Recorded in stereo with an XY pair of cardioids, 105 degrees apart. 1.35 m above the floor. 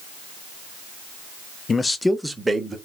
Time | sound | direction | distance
1.7 | a man speaking | 40° left | 0.6 m